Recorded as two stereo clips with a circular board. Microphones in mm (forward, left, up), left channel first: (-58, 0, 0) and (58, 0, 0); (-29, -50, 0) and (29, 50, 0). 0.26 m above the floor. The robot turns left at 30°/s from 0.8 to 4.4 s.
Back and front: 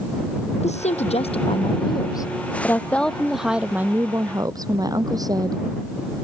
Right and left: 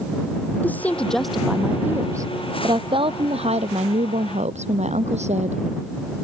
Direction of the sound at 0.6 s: 165° left.